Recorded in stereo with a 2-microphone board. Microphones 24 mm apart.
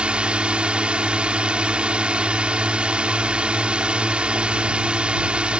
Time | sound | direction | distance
0.0 | a drone | 60° right (ahead or behind) | ?